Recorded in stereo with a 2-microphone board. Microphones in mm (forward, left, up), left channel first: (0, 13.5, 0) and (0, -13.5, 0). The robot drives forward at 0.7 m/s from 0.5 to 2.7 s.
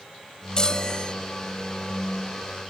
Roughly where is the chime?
Left.